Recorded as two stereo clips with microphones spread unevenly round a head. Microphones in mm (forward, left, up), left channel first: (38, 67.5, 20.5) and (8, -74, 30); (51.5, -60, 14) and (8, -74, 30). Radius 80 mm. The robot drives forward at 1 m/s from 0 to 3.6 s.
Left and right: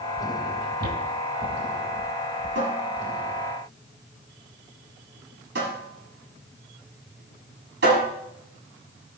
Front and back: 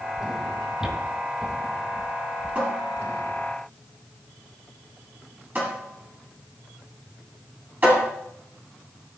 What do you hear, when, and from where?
0.8 s footsteps: 90° right, 2.5 m; by 2.6 s 85° right, 2 m
2.5 s a cupboard door: 100° right, 6.5 m; by 8.1 s 110° right, 7 m